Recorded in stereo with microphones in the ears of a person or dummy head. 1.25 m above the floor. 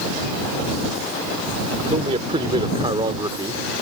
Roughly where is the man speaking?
Right.